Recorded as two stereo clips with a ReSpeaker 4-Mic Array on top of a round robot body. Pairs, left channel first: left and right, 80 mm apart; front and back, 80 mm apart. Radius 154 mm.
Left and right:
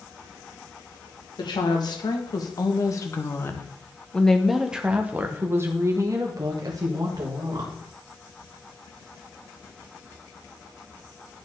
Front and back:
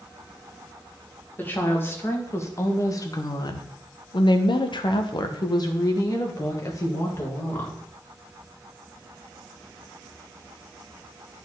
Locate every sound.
1.4 s a woman speaking: 65° left, 1.9 m; by 7.8 s 60° right, 2 m